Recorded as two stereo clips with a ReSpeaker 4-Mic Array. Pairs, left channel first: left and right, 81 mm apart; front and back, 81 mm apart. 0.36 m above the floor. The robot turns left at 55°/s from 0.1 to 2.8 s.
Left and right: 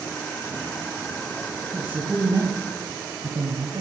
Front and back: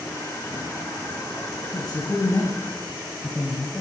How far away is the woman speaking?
About 2.5 m.